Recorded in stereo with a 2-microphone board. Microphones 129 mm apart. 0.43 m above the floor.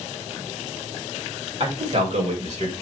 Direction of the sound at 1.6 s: 45° right (ahead or behind).